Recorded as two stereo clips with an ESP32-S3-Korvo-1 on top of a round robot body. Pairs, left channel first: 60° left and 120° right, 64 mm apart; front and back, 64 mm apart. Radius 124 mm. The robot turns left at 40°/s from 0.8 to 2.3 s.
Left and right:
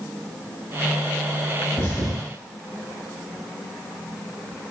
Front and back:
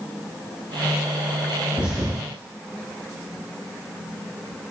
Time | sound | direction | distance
1.8 | a thud | 105° left | 3.5 m